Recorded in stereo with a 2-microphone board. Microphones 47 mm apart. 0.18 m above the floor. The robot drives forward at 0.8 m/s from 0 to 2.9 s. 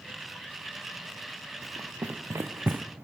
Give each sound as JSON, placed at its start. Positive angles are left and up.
{"t": 1.6, "sound": "running footsteps", "side_deg": -70, "distance_m": 1.2}